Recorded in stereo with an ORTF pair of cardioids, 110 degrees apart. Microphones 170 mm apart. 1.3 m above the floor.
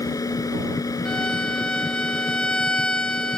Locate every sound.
0.0 s a machine running: 20° left
1.1 s a violin: 5° left